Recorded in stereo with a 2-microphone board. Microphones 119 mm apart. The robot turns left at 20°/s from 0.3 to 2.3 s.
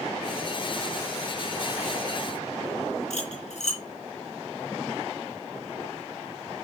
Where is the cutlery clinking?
75° left (ahead or behind), 3.5 m.